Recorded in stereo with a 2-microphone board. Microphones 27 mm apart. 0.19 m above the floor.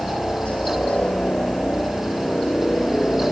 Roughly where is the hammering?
I don't hear hammering.